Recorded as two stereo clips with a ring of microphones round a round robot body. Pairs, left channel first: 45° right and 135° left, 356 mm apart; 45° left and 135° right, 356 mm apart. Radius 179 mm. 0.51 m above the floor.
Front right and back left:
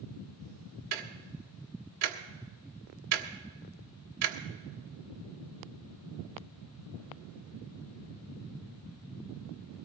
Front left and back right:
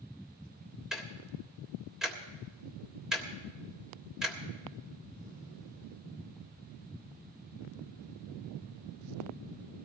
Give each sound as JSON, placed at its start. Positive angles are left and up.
{"t": 0.9, "sound": "ticking", "azimuth_deg": 135, "distance_m": 1.5}